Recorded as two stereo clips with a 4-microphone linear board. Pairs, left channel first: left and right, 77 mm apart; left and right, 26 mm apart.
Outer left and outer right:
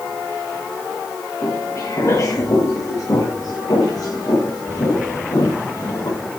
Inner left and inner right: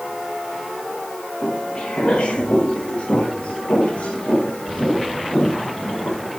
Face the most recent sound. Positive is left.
turn(degrees=60)  # may be behind; listen again after turning